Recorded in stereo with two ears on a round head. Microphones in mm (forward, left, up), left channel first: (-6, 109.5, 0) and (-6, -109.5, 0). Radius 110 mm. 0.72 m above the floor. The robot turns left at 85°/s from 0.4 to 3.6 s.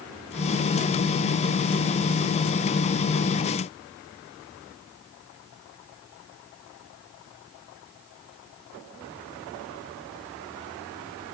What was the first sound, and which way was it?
Only background noise.